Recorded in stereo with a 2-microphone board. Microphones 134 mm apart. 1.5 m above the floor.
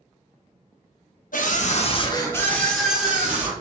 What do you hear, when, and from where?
1.3 s a scream: 80° left, 0.7 m; by 3.5 s 15° right (ahead or behind), 1.3 m